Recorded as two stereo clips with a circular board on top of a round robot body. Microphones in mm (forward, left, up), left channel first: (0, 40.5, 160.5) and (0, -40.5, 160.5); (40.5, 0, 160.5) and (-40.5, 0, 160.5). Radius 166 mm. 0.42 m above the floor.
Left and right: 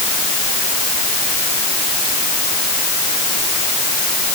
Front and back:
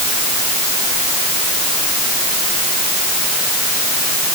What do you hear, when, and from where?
Only background noise.